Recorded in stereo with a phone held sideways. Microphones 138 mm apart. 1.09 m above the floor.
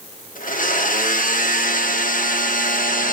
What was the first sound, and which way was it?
A blender, 80° left.